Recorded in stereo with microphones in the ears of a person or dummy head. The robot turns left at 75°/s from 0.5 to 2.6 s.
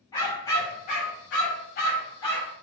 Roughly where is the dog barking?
Behind left.